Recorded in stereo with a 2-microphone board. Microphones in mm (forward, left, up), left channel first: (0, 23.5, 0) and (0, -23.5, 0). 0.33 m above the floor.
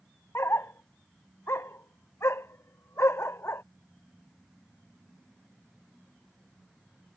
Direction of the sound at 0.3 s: 70° left (ahead or behind).